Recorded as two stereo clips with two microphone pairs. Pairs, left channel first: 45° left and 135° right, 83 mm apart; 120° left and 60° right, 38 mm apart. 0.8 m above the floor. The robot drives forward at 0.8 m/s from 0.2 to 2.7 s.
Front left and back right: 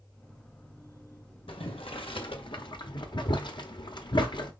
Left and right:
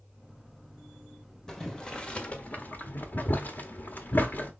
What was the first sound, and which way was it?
Boiling, 40° left.